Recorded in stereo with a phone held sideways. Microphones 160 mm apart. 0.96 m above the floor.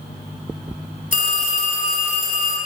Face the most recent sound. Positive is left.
turn(degrees=55)  # may be behind; listen again after turning